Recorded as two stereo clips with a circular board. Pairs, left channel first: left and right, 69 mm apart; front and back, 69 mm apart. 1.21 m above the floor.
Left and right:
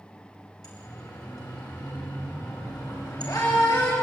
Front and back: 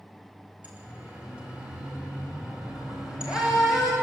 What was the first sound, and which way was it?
A siren, 110° left.